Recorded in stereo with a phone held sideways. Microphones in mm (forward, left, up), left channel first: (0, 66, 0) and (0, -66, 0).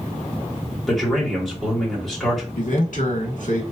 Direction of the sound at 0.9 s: 5° left (ahead or behind).